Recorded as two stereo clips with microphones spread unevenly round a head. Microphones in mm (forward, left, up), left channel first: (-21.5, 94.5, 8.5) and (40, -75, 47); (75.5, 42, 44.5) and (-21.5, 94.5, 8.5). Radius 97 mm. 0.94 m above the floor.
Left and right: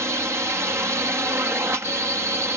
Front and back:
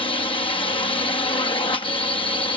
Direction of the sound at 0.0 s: 10° left.